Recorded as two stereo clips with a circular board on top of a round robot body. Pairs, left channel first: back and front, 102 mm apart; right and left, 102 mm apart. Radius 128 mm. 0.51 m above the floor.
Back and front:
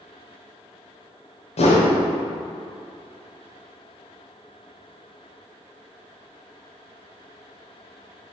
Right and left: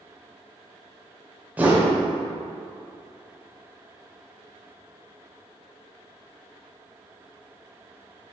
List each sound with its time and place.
1.6 s a whoosh: 165° left, 1.1 m